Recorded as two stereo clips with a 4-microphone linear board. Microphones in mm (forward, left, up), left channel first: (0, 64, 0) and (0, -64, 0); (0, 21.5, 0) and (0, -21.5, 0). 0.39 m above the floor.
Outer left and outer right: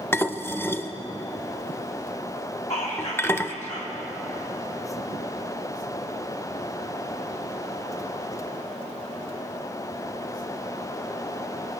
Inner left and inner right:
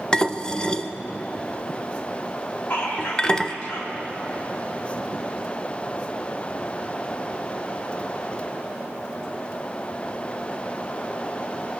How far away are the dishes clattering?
About 0.5 m.